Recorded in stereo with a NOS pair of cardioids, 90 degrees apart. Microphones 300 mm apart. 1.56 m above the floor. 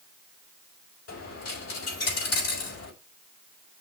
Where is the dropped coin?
55° left, 3.5 m.